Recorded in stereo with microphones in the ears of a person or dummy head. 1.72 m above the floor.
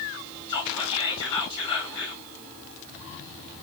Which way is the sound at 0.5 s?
30° left (ahead or behind).